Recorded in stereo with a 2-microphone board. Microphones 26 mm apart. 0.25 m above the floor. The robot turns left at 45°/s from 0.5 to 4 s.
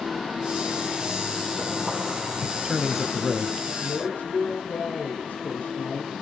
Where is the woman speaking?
75° left (ahead or behind), 5 m; by 6.1 s 70° left (ahead or behind), 5 m.